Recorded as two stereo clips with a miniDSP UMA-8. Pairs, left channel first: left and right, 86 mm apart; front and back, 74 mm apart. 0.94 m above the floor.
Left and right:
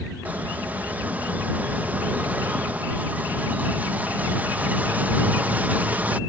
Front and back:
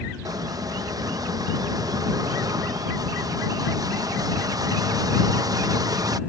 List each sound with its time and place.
0.2 s a squeak: 160° right